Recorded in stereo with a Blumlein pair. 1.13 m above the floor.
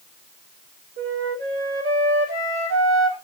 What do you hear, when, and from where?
1.0 s a flute: 65° right, 3.5 m